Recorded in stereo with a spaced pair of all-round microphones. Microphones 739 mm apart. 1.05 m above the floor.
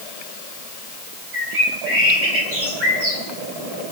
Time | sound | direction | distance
1.3 | a bird | 65° right (ahead or behind) | 5 m